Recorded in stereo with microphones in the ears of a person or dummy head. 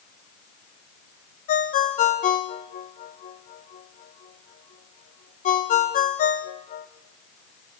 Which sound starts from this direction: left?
A ringtone, at 1.5 s.